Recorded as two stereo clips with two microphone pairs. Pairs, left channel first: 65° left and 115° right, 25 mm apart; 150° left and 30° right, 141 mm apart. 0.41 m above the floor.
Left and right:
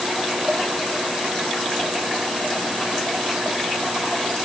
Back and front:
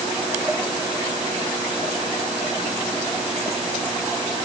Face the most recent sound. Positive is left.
No sound to turn to.